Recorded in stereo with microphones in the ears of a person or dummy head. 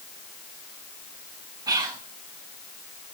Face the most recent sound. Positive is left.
turn(degrees=-25)  # may be behind; listen again after turning